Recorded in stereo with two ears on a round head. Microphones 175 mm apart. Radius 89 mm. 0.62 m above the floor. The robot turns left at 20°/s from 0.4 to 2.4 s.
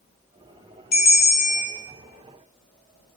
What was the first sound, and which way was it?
A bell, 50° left (ahead or behind).